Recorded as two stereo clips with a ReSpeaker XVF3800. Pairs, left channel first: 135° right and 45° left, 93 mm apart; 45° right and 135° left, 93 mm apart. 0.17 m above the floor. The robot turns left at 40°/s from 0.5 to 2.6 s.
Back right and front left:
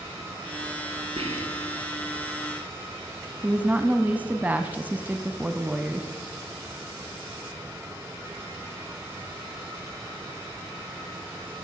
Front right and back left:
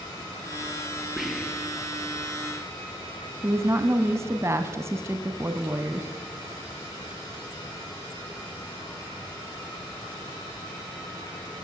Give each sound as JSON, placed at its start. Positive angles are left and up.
{"t": 1.2, "sound": "whispering", "azimuth_deg": 50, "distance_m": 4.0}
{"t": 3.4, "sound": "a woman speaking", "azimuth_deg": 110, "distance_m": 1.4}